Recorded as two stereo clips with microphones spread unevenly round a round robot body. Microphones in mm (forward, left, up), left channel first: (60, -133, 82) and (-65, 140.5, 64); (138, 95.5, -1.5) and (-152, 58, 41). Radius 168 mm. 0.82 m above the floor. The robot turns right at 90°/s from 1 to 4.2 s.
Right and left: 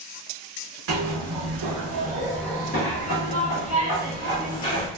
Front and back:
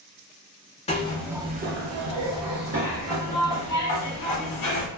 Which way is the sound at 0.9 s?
80° left.